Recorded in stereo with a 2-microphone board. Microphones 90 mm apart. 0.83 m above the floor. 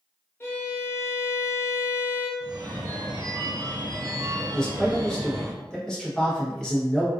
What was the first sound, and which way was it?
A violin, 25° left (ahead or behind).